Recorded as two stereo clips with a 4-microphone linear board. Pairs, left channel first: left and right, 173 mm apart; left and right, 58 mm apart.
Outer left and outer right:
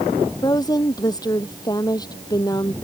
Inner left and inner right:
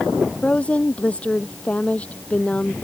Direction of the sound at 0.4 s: 20° left (ahead or behind).